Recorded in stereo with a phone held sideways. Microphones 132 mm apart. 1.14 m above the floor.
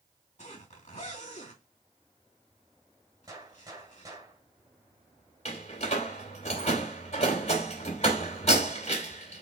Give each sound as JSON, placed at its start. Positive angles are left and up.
{"t": 0.4, "sound": "a zipper", "side_deg": 55, "distance_m": 2.5}
{"t": 3.3, "sound": "a gunshot", "side_deg": -25, "distance_m": 1.7}
{"t": 5.5, "sound": "a door slam", "side_deg": 55, "distance_m": 2.5}